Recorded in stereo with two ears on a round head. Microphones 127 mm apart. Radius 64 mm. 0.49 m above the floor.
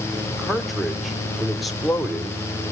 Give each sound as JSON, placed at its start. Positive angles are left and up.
{"t": 0.3, "sound": "a man speaking", "side_deg": 0, "distance_m": 1.3}